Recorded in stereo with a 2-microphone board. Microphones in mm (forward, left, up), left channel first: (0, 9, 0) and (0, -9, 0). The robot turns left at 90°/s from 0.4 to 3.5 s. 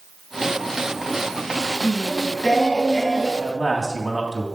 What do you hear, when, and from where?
1.8 s singing: 120° left, 2 m; by 3.3 s 10° right, 2 m
3.4 s a man speaking: 5° right (ahead or behind), 3 m; by 4.5 s 10° right (ahead or behind), 3 m